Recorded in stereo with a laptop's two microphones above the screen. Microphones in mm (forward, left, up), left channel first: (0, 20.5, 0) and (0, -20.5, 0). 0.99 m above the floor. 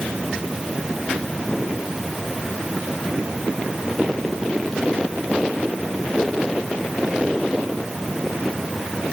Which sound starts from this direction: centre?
A fan, at 0.0 s.